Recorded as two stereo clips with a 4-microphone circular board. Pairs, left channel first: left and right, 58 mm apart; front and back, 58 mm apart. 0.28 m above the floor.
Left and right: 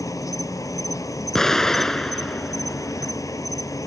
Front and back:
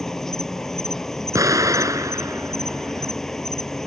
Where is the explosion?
170° left.